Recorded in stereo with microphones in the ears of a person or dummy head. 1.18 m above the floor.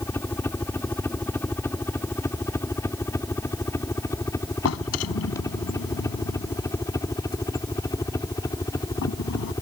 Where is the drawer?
80° left.